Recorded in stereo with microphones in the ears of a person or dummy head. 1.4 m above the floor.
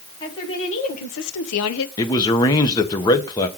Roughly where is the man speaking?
Centre.